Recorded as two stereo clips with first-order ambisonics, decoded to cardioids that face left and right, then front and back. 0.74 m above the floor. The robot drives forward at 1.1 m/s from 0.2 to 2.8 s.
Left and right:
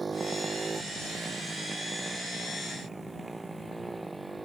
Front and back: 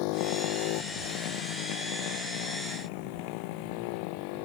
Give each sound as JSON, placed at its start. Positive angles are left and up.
{"t": 0.0, "sound": "a motorcycle", "azimuth_deg": -15}